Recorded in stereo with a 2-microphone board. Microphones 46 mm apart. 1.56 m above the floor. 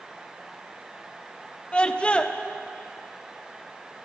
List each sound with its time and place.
1.7 s a scream: 25° left (ahead or behind), 1.0 m